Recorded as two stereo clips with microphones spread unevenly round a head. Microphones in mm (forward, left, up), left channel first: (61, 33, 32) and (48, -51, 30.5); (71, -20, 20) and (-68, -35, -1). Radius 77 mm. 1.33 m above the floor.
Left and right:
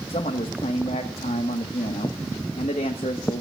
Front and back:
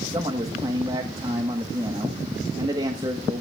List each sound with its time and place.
0.1 s a man speaking: 115° left, 1.2 m